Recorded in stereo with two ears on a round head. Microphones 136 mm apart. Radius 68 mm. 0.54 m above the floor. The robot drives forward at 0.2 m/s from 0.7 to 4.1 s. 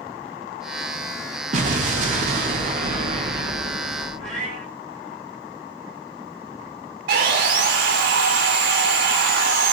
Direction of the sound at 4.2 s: 5° left (ahead or behind).